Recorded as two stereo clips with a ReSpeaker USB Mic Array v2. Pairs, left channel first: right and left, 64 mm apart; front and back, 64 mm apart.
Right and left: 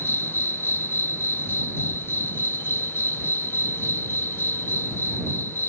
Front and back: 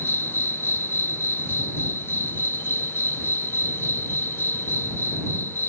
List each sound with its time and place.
0.0 s an insect: 45° right